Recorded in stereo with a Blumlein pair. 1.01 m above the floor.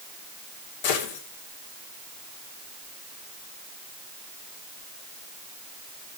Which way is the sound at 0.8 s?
50° left.